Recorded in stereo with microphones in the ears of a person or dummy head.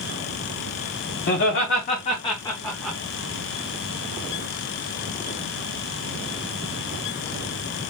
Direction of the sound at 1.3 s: 50° left (ahead or behind).